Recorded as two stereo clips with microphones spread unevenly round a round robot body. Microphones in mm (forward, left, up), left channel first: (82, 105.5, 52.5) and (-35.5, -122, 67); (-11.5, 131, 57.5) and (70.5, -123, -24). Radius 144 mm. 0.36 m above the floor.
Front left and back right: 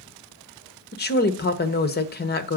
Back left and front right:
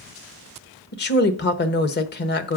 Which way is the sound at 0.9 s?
50° left.